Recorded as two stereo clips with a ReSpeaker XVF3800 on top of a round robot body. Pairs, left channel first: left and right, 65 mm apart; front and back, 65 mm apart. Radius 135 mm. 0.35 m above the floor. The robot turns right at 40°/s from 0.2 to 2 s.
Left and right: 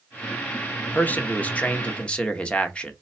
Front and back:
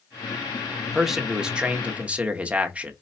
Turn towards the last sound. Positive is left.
turn(degrees=140)